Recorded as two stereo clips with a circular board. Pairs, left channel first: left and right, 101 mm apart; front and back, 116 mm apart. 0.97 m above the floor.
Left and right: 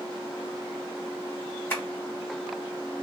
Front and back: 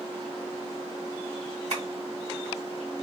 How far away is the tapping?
About 1.6 m.